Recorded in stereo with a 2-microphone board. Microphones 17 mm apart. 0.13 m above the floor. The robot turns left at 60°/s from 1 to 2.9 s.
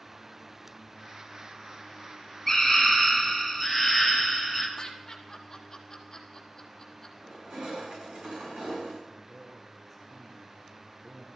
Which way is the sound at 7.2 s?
85° right.